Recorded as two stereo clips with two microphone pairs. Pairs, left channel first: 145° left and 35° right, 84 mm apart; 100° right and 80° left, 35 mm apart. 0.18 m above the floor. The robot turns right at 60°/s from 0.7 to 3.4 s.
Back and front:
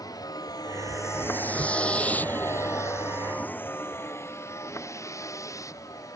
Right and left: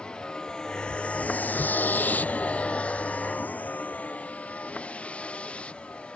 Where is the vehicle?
170° right; by 6.2 s 165° right.